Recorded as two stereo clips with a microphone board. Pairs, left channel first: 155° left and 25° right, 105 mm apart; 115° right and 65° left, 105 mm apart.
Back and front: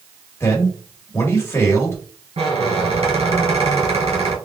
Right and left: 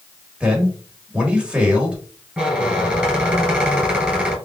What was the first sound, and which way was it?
A man speaking, 135° left.